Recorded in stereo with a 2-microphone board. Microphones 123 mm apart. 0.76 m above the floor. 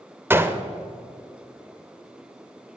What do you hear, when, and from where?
0.3 s a gunshot: 20° right (ahead or behind), 0.6 m